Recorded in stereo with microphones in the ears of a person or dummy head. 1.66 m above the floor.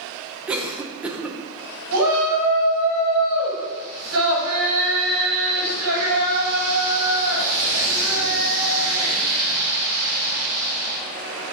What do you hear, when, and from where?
0.5 s a cough: 5° right (ahead or behind), 0.9 m
1.9 s a shout: 80° right, 2 m